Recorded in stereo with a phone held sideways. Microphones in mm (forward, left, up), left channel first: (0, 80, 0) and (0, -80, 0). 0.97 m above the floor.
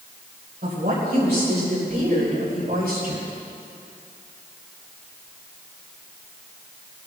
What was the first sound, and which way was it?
A woman speaking, 75° right (ahead or behind).